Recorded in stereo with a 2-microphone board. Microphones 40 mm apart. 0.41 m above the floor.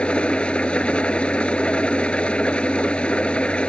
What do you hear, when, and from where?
0.0 s an engine running: 25° left (ahead or behind)